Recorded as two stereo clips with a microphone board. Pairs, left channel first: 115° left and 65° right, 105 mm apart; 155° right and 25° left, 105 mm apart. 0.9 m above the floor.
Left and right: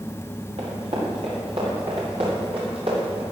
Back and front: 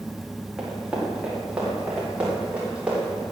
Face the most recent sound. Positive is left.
turn(degrees=-55)